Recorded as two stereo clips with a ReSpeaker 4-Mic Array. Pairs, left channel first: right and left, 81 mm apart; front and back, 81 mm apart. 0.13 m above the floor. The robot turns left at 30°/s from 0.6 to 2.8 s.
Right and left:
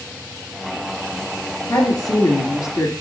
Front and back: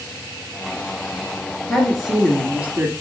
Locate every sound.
1.7 s a woman speaking: 85° right, 2.5 m; by 2.9 s 120° right, 2.5 m